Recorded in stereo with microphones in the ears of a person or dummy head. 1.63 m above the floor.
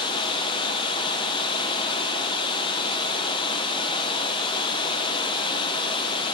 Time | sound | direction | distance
0.0 | running water | 30° left (ahead or behind) | 0.9 m